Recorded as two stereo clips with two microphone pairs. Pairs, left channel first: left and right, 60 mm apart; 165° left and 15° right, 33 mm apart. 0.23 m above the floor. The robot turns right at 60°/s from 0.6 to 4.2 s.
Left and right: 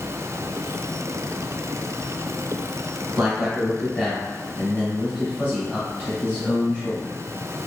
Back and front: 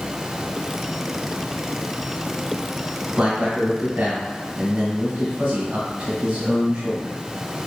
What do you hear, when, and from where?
3.2 s a man speaking: 20° right, 1.3 m; by 7.2 s 40° left, 1.3 m